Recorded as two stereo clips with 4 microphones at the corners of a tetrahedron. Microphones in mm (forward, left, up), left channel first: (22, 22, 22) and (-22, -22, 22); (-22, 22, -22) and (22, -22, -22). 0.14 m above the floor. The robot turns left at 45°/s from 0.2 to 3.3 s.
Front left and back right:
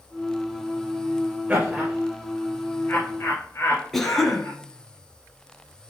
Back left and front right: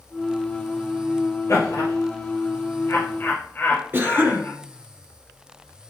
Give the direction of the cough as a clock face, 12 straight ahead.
1 o'clock.